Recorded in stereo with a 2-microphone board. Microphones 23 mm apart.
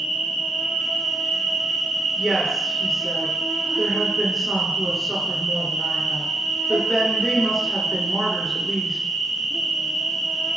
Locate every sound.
0.0 s an insect: 10° left (ahead or behind), 1.0 m
2.2 s a woman speaking: centre (ahead or behind), 1.1 m